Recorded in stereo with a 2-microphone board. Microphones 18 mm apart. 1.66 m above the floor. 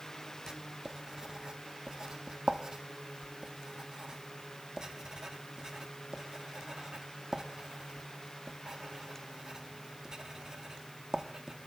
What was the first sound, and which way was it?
Writing, 30° right (ahead or behind).